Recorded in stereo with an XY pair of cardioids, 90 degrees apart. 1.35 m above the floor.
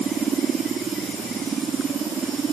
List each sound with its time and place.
Only background noise.